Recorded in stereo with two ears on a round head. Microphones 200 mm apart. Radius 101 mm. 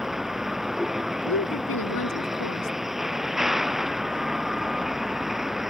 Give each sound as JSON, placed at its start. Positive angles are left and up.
{"t": 0.0, "sound": "a vehicle", "side_deg": 0}
{"t": 1.2, "sound": "a woman speaking", "side_deg": 70}